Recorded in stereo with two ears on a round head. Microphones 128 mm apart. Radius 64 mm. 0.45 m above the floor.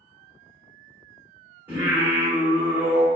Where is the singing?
15° right (ahead or behind), 1.3 m.